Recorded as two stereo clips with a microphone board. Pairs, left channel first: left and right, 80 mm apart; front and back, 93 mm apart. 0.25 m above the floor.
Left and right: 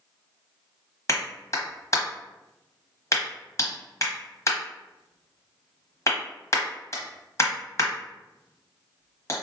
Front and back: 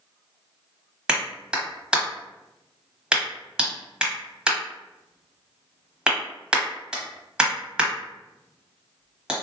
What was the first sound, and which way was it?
A clap, 105° left.